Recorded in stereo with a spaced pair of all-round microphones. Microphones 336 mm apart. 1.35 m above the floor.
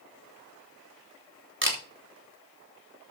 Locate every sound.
1.6 s a camera shutter: 35° right (ahead or behind), 3 m